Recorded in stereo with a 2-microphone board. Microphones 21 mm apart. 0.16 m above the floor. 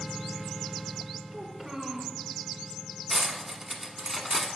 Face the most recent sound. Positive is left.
turn(degrees=-15)  # may be behind; listen again after turning